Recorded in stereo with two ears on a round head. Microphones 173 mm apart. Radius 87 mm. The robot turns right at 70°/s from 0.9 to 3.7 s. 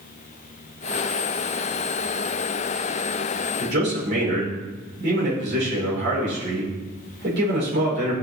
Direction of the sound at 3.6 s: 60° right (ahead or behind).